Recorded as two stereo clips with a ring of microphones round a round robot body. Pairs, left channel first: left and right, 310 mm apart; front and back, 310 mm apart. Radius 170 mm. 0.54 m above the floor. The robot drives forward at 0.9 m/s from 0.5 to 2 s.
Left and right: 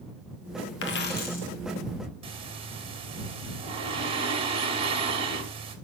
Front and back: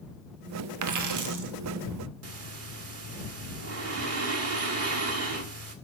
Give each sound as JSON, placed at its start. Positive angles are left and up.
{"t": 0.8, "sound": "a dropped coin", "azimuth_deg": 145, "distance_m": 1.1}
{"t": 2.2, "sound": "breathing", "azimuth_deg": -160, "distance_m": 1.4}